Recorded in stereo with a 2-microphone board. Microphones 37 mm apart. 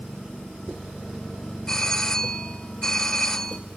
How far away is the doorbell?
About 2 m.